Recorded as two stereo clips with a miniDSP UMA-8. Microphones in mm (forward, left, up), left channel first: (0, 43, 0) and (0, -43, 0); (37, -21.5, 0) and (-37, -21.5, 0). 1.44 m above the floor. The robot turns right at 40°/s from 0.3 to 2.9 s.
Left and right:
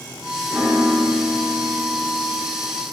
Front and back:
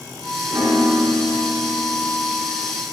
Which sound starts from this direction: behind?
A piano, at 0.5 s.